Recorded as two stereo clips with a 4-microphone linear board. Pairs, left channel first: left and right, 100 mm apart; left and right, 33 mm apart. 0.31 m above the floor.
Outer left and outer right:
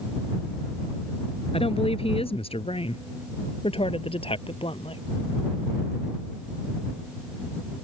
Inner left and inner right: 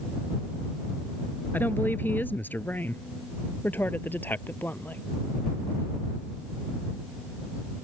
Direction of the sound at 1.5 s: 75° left (ahead or behind).